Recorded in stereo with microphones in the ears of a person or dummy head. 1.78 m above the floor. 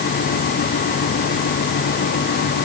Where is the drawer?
I don't hear a drawer.